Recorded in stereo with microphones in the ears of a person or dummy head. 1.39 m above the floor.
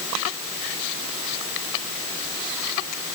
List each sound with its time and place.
Only background noise.